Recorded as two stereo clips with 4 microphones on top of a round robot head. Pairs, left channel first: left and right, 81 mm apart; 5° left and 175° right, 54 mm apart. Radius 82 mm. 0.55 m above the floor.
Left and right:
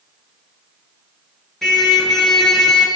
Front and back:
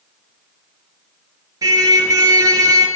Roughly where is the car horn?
Behind.